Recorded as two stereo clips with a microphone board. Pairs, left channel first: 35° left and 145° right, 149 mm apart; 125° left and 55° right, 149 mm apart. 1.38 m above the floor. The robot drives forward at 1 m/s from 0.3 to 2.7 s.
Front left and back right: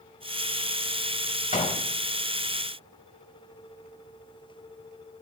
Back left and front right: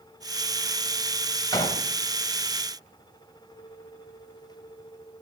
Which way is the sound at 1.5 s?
60° left.